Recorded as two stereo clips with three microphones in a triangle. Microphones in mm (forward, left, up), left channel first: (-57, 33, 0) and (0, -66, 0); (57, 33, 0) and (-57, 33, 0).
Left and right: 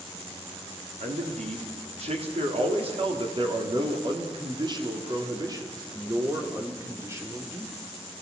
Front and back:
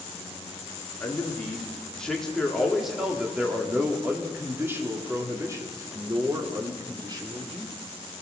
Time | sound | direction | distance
1.0 | a man speaking | 75° right | 3.5 m